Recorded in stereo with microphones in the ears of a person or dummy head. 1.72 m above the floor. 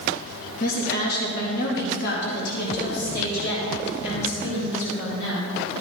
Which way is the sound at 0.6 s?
60° left (ahead or behind).